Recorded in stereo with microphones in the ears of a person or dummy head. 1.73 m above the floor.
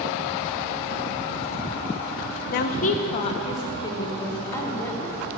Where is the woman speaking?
60° left (ahead or behind), 0.7 m; by 5.4 s 10° left (ahead or behind), 1.9 m.